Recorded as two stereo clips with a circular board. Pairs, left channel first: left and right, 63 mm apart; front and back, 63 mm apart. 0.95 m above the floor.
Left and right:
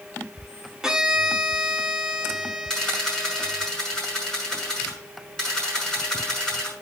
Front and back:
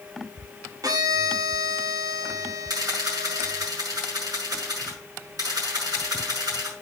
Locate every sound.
0.8 s a violin: 170° right, 1.3 m
2.7 s a camera shutter: 170° left, 6.5 m